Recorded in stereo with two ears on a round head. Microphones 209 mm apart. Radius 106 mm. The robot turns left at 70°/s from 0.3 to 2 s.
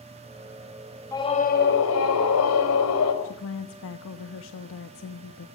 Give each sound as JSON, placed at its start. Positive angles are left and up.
{"t": 1.1, "sound": "a scream", "azimuth_deg": 165, "distance_m": 5.5}
{"t": 3.2, "sound": "a woman speaking", "side_deg": 60, "distance_m": 1.3}